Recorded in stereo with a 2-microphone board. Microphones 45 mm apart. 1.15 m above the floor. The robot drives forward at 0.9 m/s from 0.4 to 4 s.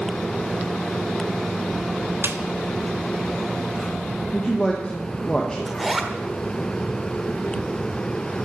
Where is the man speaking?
20° left (ahead or behind), 1.5 m.